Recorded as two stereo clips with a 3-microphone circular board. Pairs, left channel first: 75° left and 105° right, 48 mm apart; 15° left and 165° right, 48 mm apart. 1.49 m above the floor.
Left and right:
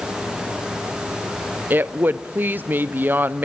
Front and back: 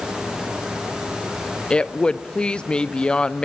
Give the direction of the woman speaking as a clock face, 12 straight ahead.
2 o'clock.